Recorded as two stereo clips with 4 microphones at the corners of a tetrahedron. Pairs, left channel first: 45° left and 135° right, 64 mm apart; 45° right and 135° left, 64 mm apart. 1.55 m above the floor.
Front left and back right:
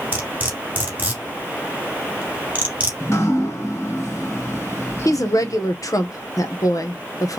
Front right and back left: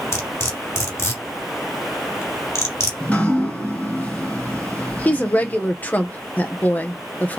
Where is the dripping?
15° left, 2.5 m.